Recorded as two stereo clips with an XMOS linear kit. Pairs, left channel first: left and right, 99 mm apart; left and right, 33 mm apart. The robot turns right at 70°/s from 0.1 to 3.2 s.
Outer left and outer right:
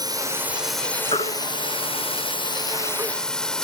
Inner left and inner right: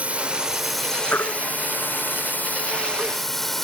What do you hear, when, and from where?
0.0 s a drone: 45° right; by 3.6 s 175° left
1.1 s a baby crying: 80° left; by 3.1 s 40° right (ahead or behind)